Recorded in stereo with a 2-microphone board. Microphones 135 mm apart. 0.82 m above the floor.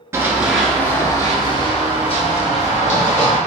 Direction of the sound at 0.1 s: 20° right (ahead or behind).